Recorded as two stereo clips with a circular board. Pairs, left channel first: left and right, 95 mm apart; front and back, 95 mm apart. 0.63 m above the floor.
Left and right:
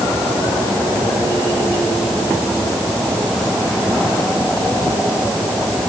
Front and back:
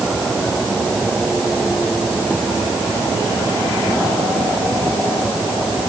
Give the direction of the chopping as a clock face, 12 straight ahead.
I don't hear chopping.